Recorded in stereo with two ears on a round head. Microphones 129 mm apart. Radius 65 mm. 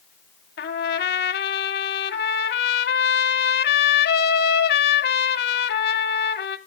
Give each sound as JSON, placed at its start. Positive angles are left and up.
{"t": 0.6, "sound": "a trumpet", "side_deg": 75, "distance_m": 0.6}